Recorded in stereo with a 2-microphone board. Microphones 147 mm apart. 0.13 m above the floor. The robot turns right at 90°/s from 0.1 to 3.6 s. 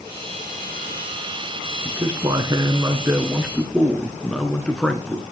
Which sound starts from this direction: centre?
A man speaking, at 1.9 s.